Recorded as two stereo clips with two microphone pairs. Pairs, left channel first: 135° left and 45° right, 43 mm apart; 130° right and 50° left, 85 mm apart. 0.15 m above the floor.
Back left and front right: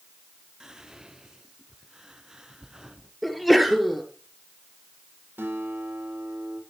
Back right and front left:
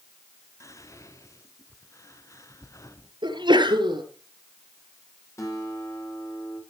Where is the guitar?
80° right, 6 m.